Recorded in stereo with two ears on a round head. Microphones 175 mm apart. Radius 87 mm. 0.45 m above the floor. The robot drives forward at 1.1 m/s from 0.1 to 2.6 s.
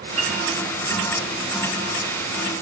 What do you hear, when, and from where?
0.2 s a piano: 35° right (ahead or behind), 9.5 m